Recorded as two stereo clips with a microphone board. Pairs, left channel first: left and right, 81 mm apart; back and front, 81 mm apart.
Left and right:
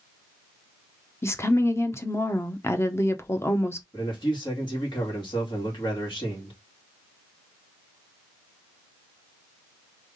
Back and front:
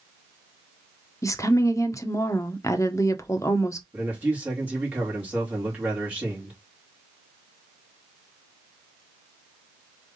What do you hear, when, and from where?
1.2 s a woman speaking: 140° left, 0.9 m
3.9 s a man speaking: 70° left, 2.5 m